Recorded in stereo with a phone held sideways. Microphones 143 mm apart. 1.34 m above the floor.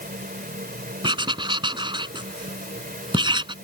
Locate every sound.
0.0 s a fan: 75° right (ahead or behind)
1.0 s writing: 35° right (ahead or behind)